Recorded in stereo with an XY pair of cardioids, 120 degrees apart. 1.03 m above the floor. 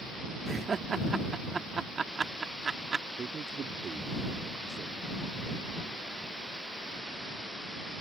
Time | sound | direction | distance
0.5 | laughter | 30° right | ?
3.2 | a man speaking | 40° right | ?